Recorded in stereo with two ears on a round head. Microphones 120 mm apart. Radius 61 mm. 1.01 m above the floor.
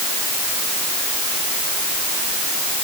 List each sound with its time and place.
Only background noise.